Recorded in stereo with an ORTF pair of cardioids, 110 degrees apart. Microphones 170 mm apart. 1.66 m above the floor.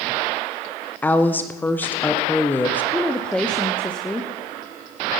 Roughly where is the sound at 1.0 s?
Ahead.